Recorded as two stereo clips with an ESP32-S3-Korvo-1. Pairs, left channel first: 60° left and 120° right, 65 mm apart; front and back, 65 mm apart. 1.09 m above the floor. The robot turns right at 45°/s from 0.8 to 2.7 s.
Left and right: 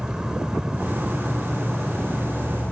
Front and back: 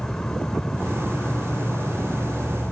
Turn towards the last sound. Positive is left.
turn(degrees=25)